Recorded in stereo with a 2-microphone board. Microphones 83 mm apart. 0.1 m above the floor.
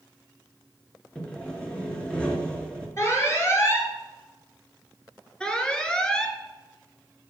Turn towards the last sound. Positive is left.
turn(degrees=10)  # may be behind; listen again after turning